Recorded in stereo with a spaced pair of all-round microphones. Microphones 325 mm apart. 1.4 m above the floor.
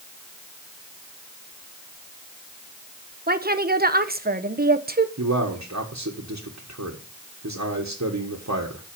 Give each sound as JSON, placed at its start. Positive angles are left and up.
{"t": 3.3, "sound": "a woman speaking", "side_deg": -30, "distance_m": 0.9}
{"t": 5.2, "sound": "a man speaking", "side_deg": -55, "distance_m": 1.5}